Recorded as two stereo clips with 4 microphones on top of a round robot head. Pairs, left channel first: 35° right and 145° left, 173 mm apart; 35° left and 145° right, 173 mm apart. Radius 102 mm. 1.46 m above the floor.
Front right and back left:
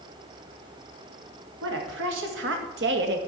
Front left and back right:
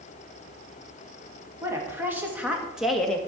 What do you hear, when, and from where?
1.6 s a woman speaking: 135° left, 3 m; by 3.2 s 120° left, 1.5 m